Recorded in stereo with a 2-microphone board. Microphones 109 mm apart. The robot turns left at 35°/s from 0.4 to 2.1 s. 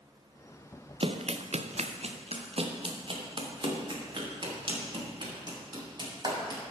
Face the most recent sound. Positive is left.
turn(degrees=-40)  # may be behind; listen again after turning